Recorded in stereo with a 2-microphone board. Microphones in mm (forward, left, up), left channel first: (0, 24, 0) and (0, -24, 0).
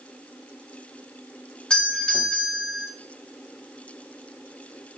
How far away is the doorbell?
About 1.7 m.